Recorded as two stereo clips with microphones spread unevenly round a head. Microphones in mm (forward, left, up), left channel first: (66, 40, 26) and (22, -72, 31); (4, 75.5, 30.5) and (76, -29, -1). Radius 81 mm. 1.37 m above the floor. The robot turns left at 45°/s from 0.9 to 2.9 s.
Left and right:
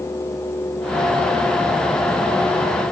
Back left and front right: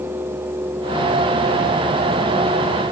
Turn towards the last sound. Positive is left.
No sound to turn to.